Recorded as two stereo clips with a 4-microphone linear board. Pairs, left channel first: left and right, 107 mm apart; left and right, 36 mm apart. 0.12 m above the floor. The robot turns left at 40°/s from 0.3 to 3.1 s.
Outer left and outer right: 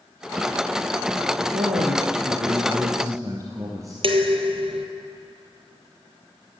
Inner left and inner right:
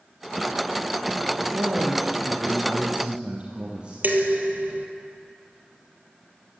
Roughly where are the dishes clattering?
Right.